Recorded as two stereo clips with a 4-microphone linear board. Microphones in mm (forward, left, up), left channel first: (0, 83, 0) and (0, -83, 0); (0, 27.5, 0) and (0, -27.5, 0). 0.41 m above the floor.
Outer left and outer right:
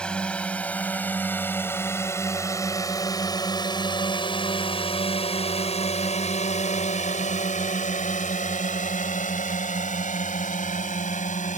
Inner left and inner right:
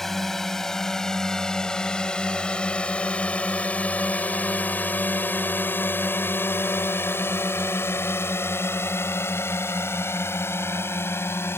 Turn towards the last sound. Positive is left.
turn(degrees=50)  # may be behind; listen again after turning